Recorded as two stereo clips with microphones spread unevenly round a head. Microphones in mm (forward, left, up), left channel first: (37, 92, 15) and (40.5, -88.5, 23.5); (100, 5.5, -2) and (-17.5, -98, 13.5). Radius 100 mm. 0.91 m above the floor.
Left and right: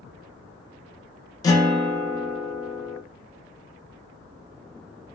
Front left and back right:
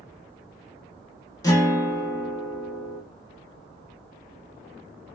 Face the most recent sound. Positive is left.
turn(degrees=60)